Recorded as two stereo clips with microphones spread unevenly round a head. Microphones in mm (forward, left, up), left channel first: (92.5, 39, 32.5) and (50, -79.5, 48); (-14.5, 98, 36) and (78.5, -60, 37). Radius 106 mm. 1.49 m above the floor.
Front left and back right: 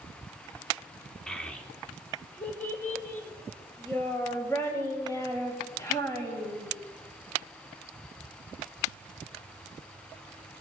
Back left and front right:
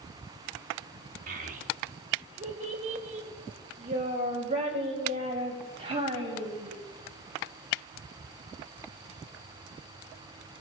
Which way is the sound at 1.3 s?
15° right.